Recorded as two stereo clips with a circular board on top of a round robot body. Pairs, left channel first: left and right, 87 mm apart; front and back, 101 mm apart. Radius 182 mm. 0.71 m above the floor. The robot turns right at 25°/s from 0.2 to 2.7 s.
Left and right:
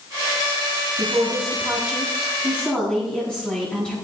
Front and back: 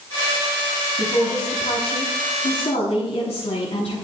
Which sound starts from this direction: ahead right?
A woman speaking, at 1.0 s.